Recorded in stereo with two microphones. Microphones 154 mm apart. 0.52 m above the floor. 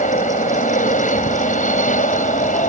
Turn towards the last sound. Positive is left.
turn(degrees=60)  # may be behind; listen again after turning